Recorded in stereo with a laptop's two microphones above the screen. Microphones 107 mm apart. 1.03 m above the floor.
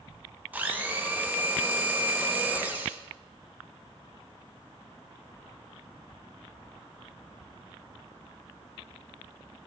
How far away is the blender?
About 0.5 m.